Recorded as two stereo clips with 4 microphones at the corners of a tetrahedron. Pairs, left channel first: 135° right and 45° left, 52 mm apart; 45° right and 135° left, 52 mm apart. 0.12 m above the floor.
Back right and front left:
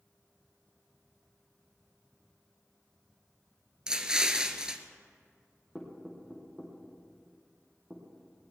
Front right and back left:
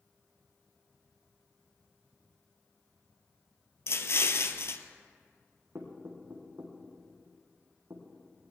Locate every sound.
3.9 s an explosion: 30° right, 0.9 m
5.8 s knocking: 115° left, 4 m